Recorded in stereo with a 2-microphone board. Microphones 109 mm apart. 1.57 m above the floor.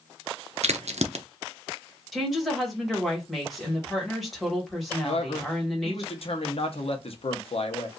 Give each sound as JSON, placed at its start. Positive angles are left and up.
{"t": 0.6, "sound": "a crack", "side_deg": -85, "distance_m": 0.6}
{"t": 2.1, "sound": "a woman speaking", "side_deg": 0, "distance_m": 1.6}
{"t": 5.0, "sound": "a man speaking", "side_deg": 60, "distance_m": 0.9}